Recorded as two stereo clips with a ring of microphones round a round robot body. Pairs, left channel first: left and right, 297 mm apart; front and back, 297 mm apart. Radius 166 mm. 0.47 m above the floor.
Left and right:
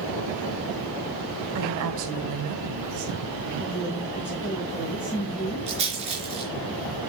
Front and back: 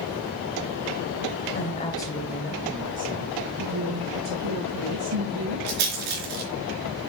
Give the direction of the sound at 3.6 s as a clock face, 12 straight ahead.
6 o'clock.